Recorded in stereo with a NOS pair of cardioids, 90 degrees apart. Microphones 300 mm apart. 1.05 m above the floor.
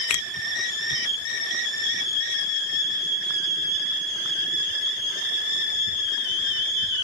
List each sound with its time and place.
0.1 s a finger snap: 65° left, 0.6 m